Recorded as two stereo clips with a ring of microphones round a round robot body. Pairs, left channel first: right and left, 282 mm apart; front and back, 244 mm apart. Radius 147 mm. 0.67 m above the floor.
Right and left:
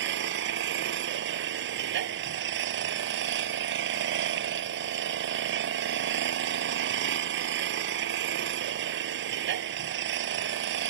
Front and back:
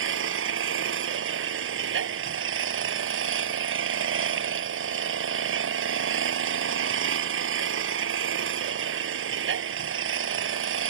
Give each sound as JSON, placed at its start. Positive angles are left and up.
{"t": 0.0, "sound": "an engine running", "azimuth_deg": 145}